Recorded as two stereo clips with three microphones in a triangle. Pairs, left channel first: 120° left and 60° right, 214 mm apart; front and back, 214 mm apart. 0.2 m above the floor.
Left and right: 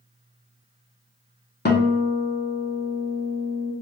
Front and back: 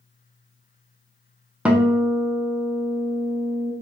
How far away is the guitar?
About 0.5 m.